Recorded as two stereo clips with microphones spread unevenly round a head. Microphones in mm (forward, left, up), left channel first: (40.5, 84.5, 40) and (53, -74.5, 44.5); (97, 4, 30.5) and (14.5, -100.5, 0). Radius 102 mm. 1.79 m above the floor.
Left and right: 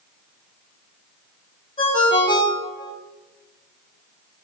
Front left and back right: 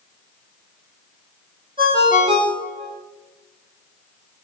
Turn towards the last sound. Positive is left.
turn(degrees=160)